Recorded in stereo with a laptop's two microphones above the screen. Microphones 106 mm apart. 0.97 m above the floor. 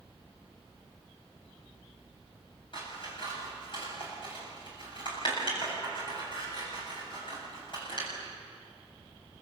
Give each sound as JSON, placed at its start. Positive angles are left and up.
{"t": 2.7, "sound": "scissors", "side_deg": 50, "distance_m": 8.0}